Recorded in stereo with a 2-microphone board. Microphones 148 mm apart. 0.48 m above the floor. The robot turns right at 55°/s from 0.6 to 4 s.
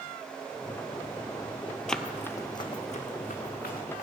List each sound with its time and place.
1.9 s running footsteps: 5° left (ahead or behind), 0.6 m; by 4.0 s 75° left (ahead or behind), 3.5 m